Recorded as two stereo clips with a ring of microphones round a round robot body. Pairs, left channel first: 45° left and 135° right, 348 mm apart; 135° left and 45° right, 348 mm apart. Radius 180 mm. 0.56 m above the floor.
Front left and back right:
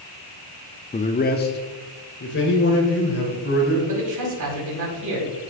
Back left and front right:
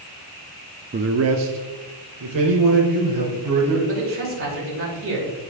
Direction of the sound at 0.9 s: 10° right.